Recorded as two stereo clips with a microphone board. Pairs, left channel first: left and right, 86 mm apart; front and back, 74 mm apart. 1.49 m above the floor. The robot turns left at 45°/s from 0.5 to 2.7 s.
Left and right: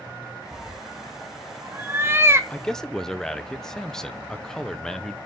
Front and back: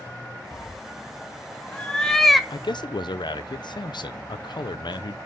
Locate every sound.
0.5 s a cat meowing: 5° right, 0.8 m; by 2.4 s 90° right, 0.8 m
2.5 s a man speaking: 15° left, 0.7 m; by 5.2 s 5° left, 0.7 m